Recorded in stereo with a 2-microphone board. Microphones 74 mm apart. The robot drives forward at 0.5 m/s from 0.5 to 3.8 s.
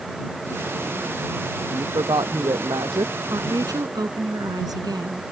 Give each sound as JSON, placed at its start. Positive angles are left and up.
{"t": 1.6, "sound": "a woman speaking", "side_deg": -75}
{"t": 3.3, "sound": "a woman speaking", "side_deg": -60}